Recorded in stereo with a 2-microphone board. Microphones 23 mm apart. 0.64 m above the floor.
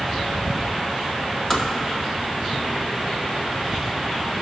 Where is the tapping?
25° left (ahead or behind), 1.5 m.